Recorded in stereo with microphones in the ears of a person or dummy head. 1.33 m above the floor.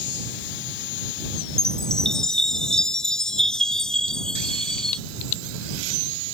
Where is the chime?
Centre (ahead or behind).